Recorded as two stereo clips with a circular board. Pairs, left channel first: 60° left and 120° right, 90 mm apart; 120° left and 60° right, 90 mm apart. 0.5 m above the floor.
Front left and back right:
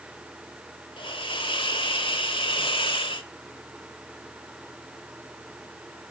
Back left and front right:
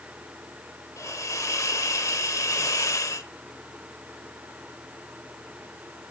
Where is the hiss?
70° left, 1.1 m.